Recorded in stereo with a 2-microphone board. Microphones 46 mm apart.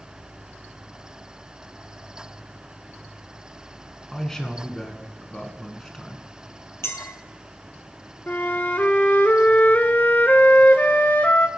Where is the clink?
70° left (ahead or behind), 2.5 m.